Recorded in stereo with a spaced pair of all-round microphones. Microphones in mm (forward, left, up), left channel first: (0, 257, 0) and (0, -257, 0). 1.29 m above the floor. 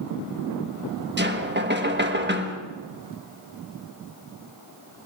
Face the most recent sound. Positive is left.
turn(degrees=-20)  # may be behind; listen again after turning